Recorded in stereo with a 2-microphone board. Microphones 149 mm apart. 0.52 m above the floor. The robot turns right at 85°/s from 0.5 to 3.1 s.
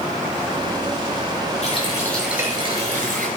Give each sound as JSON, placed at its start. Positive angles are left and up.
{"t": 1.6, "sound": "a running tap", "azimuth_deg": 125, "distance_m": 6.0}